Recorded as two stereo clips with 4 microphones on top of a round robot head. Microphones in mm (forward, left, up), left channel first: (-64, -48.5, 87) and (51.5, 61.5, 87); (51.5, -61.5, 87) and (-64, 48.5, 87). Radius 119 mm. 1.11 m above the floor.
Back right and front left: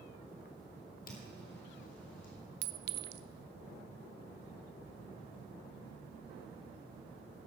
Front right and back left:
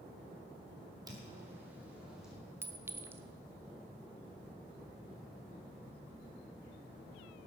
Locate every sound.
1.1 s footsteps: 160° right, 1.5 m; by 2.3 s 135° right, 2.5 m
2.6 s a clink: 60° left, 0.6 m